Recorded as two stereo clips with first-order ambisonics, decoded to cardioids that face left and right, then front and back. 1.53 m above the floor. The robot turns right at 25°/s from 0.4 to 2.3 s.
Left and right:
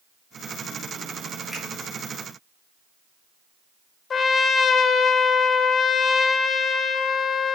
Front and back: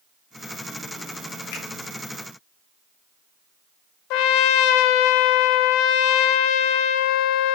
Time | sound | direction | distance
1.5 | a finger snap | 5° right | 4 m
4.1 | a trumpet | 25° left | 0.5 m